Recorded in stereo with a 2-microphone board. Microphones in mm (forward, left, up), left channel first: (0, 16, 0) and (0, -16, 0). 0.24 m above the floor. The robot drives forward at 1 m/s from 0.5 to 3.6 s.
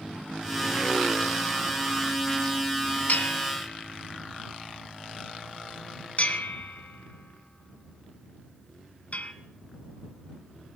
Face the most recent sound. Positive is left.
turn(degrees=45)  # may be behind; listen again after turning